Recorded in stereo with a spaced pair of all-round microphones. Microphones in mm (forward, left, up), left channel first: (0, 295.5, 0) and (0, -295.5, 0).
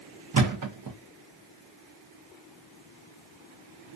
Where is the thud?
35° right (ahead or behind), 0.6 m.